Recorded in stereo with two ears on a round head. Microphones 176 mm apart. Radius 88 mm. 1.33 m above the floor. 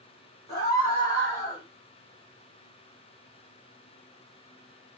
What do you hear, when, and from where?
0.5 s a scream: 20° left (ahead or behind), 5 m